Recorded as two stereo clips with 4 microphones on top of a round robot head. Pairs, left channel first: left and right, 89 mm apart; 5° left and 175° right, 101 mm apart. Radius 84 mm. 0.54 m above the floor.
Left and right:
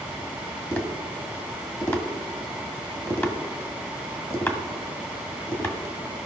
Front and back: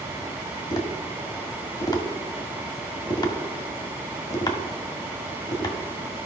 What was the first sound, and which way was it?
Tapping, 35° left.